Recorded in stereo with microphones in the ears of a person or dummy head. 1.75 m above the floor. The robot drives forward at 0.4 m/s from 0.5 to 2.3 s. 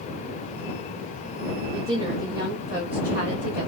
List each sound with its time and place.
1.7 s a woman speaking: 40° right (ahead or behind), 0.6 m; by 3.7 s 30° right (ahead or behind), 0.8 m